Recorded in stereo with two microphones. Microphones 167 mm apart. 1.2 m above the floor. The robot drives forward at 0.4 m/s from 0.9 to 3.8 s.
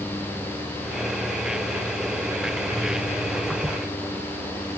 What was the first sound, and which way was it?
Only background noise.